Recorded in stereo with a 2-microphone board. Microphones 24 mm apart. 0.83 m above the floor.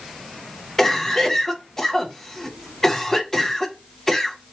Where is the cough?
15° left (ahead or behind), 0.6 m.